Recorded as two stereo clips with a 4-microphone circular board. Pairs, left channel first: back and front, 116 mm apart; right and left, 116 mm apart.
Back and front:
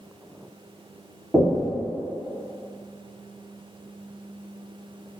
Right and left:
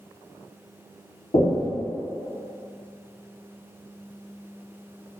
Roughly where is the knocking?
Right.